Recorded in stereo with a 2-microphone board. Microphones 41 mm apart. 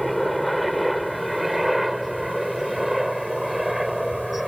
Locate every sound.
0.0 s a helicopter: centre (ahead or behind); by 4.5 s 5° right (ahead or behind)